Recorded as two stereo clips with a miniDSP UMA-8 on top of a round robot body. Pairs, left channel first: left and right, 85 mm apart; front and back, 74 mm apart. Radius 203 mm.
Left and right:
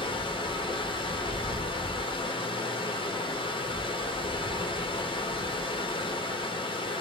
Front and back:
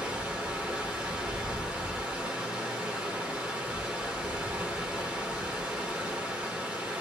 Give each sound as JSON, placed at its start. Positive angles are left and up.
{"t": 0.0, "sound": "running water", "azimuth_deg": 100, "distance_m": 1.0}